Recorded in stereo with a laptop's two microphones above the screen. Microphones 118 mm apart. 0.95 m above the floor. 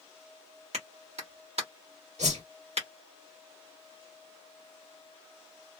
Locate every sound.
0.7 s a clap: 65° right (ahead or behind), 1.2 m
2.2 s a whoosh: 75° right (ahead or behind), 1.8 m